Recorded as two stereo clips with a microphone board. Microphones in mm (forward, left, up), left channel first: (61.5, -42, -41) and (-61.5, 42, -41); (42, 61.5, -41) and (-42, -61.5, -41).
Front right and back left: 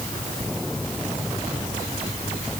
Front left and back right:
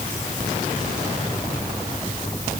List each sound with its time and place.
Only background noise.